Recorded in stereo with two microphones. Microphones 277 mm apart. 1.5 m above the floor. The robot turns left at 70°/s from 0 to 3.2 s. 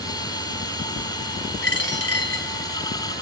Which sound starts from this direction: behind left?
A dropped coin, at 1.6 s.